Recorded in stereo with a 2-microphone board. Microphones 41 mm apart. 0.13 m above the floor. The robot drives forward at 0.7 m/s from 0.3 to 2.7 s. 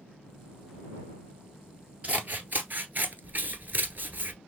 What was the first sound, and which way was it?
Scissors, 40° right (ahead or behind).